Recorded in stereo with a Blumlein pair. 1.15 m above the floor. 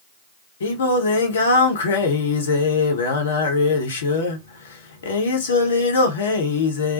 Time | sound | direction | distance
0.6 | singing | 60° left | 0.8 m